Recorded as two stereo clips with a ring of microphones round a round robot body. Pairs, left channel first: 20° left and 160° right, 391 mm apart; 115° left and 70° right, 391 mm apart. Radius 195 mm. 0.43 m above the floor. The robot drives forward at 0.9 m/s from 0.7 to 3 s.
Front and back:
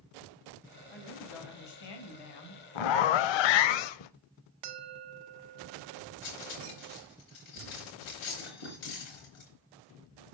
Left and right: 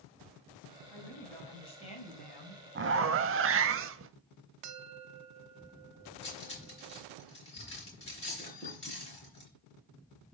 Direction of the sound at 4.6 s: 120° right.